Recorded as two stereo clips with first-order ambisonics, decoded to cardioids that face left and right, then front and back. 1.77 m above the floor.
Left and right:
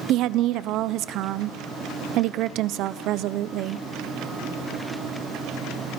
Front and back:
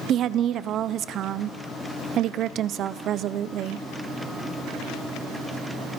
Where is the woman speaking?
130° right, 0.8 m.